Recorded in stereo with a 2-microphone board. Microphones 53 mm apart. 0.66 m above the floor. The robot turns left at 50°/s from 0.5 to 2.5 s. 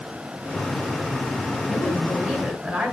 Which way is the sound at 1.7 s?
20° left.